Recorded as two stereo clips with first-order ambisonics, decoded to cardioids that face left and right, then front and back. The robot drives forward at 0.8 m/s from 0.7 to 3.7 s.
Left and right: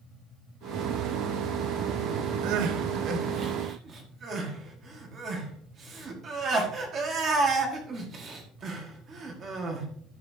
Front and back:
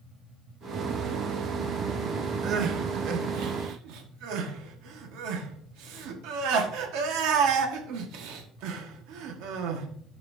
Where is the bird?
I don't hear a bird.